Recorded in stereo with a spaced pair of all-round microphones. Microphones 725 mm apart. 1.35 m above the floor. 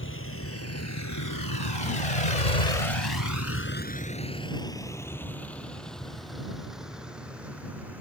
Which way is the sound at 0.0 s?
15° left (ahead or behind).